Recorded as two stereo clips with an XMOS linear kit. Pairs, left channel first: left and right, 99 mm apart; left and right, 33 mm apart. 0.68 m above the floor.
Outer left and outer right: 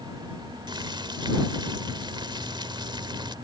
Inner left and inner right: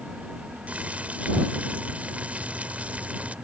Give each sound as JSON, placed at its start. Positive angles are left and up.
{"t": 0.7, "sound": "boiling", "side_deg": -50}